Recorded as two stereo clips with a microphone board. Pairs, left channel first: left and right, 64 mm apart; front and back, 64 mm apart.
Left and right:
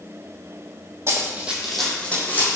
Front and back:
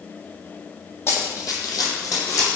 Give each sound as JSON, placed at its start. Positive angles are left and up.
{"t": 1.1, "sound": "running footsteps", "azimuth_deg": -45, "distance_m": 0.8}